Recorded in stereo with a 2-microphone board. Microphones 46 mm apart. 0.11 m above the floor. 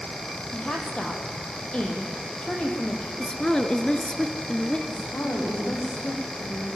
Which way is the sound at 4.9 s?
55° left (ahead or behind).